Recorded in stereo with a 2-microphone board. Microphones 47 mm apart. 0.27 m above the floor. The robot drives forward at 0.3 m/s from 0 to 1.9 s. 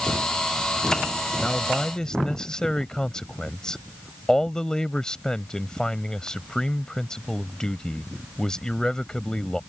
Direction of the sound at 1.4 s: 15° left (ahead or behind).